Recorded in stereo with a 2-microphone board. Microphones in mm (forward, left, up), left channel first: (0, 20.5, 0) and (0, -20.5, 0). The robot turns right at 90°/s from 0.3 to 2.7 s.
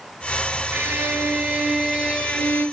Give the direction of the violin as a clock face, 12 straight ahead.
4 o'clock.